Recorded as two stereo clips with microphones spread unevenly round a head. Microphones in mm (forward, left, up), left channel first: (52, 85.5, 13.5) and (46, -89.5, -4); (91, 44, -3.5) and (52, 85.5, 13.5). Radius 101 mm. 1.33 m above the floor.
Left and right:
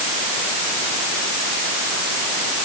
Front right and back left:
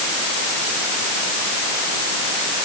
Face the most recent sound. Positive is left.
No sound to turn to.